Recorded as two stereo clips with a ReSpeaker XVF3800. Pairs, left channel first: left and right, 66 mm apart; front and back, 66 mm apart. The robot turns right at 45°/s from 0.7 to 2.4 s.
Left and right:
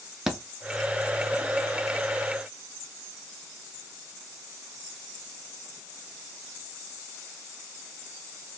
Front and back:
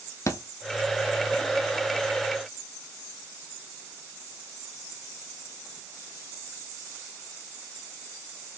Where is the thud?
10° right, 0.7 m.